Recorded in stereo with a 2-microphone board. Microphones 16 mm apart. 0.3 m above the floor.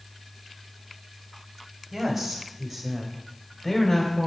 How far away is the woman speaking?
About 1.9 m.